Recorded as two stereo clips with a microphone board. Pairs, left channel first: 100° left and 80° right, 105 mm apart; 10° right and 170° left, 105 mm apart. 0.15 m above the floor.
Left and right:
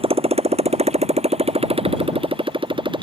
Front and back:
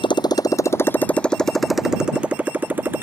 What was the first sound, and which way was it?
A motorcycle, 50° right.